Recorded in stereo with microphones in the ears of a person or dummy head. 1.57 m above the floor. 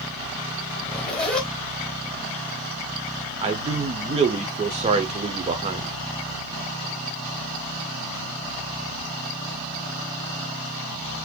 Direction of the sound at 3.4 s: 30° right (ahead or behind).